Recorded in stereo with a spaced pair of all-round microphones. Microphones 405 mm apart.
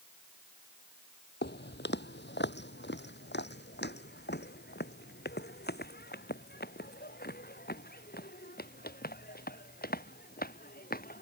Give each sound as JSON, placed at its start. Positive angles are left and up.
{"t": 1.4, "sound": "footsteps", "side_deg": 25}